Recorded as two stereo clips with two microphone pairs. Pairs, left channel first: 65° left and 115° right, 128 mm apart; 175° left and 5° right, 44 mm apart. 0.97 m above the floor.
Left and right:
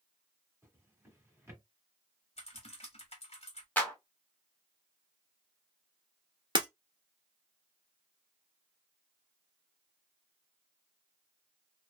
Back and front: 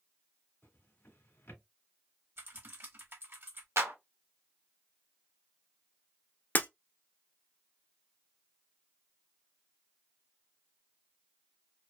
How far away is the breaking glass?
About 1.5 m.